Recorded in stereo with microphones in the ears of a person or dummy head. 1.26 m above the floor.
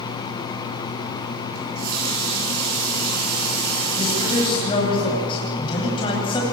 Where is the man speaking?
30° left (ahead or behind), 9 m.